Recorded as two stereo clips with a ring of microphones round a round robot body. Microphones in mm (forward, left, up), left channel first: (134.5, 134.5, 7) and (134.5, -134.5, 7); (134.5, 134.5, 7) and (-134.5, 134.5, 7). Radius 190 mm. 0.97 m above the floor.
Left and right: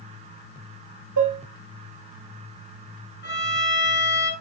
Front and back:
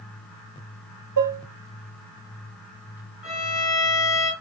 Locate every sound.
1.2 s dishes clattering: 135° right, 0.9 m
3.2 s a violin: 40° left, 5 m